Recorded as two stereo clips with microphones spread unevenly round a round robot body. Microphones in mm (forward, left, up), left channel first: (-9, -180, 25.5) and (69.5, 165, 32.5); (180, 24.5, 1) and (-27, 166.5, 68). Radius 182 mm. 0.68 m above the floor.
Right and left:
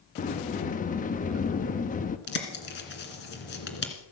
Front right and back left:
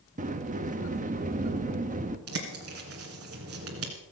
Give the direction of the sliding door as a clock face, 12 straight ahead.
5 o'clock.